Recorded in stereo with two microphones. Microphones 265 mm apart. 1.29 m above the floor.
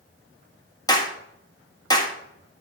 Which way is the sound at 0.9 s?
15° left (ahead or behind).